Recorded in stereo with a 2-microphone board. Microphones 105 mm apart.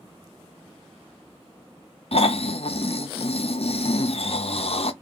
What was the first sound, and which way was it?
Snoring, 65° left (ahead or behind).